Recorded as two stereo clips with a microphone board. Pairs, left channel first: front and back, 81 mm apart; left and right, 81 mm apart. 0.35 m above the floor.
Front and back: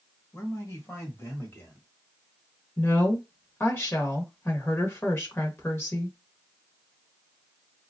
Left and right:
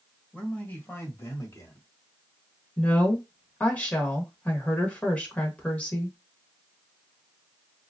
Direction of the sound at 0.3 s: 20° left.